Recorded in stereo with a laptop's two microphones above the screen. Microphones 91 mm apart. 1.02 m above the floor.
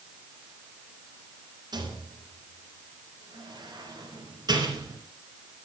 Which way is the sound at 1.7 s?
50° right (ahead or behind).